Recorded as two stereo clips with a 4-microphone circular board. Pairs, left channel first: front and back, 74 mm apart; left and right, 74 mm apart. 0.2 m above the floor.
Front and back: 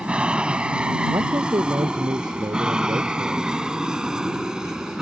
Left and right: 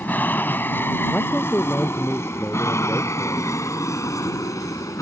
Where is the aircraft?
120° left; by 5.0 s 100° left.